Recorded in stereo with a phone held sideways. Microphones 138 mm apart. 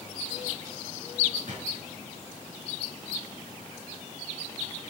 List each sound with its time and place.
1.5 s a drawer: 55° right (ahead or behind), 7 m